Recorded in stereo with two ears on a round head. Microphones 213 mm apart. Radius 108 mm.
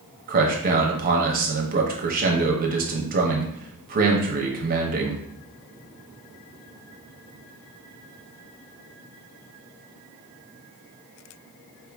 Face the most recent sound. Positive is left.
turn(degrees=-40)  # may be behind; listen again after turning